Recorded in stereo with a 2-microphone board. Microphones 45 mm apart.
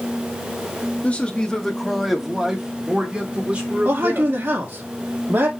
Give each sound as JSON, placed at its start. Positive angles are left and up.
{"t": 1.0, "sound": "a man speaking", "side_deg": 30, "distance_m": 1.0}
{"t": 3.9, "sound": "a man speaking", "side_deg": -50, "distance_m": 1.7}